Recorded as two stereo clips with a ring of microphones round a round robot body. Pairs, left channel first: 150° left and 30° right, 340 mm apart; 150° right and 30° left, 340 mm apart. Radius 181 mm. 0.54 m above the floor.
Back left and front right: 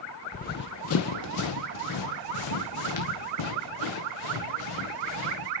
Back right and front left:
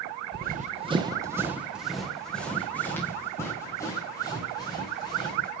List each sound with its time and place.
0.3 s running footsteps: 85° left, 0.7 m; by 5.5 s 130° left, 3.5 m